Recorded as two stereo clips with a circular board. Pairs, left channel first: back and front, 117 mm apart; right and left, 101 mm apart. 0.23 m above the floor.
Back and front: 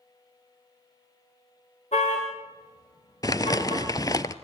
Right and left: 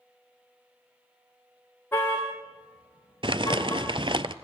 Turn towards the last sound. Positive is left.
turn(degrees=120)